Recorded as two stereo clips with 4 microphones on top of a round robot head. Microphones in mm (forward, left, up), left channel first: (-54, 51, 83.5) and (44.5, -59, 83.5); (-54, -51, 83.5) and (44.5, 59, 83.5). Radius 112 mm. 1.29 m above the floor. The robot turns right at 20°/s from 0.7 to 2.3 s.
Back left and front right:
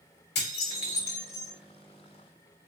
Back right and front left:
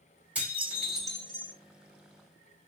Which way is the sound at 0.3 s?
130° left.